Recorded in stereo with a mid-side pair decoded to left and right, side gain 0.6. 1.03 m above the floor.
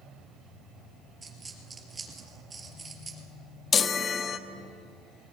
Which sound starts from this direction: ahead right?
A dropped coin, at 1.2 s.